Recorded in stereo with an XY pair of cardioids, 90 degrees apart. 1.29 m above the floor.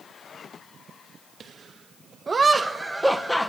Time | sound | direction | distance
1.4 | laughter | 55° right | 2 m